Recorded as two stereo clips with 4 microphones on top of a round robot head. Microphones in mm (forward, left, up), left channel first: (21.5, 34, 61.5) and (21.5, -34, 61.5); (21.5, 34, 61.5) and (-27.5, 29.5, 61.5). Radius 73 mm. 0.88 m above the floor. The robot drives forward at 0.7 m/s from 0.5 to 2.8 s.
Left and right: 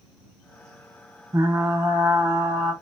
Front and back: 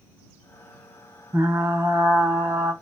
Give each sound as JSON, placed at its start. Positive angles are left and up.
{"t": 1.3, "sound": "frying", "azimuth_deg": -130, "distance_m": 0.6}